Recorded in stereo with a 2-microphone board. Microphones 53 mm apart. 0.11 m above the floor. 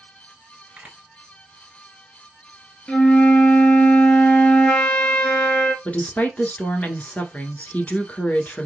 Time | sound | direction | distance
0.8 | a camera shutter | 25° right (ahead or behind) | 1.7 m
2.9 | a flute | 20° left (ahead or behind) | 1.1 m
5.8 | a woman speaking | 25° left (ahead or behind) | 1.1 m